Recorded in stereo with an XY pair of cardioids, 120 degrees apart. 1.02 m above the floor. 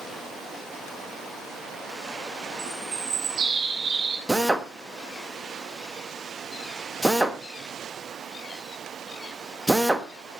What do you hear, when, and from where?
2.6 s a bird: 50° right, 3 m
4.3 s a drill: 10° right, 1.5 m